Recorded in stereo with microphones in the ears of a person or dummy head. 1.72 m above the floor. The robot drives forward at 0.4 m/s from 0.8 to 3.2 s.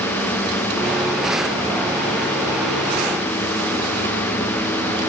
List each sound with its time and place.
Only background noise.